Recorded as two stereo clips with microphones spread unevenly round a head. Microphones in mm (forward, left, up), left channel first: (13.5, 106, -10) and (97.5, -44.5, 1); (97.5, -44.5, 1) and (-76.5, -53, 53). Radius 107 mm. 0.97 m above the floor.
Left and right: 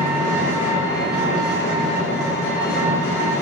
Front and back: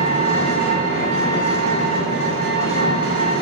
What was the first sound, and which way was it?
An engine running, 165° right.